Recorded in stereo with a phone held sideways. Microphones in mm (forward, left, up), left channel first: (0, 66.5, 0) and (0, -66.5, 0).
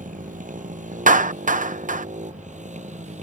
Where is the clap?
80° right.